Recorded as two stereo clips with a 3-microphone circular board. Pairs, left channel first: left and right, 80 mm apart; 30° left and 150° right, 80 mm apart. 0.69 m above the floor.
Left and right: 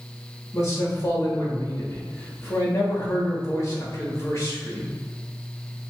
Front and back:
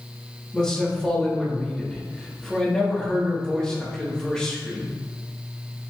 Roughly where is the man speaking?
Left.